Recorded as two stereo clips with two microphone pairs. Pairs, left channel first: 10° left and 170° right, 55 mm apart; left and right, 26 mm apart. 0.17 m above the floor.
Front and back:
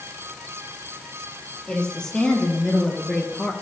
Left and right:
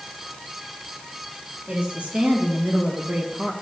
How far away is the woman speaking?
About 4 m.